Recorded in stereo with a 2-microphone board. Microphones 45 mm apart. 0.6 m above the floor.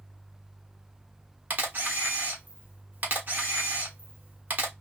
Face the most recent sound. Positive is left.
turn(degrees=-40)  # may be behind; listen again after turning